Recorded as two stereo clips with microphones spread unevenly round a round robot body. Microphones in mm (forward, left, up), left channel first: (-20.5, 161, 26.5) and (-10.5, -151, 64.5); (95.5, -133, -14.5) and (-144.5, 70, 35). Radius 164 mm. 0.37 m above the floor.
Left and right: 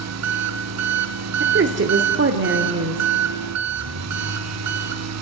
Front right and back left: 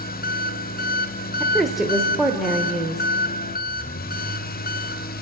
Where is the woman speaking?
120° right, 1.3 m.